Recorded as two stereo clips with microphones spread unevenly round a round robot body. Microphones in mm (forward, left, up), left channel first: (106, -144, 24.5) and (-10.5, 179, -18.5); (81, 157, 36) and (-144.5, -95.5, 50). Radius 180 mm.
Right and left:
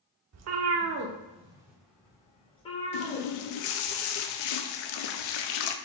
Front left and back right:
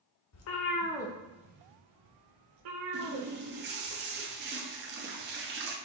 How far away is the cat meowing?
About 0.6 m.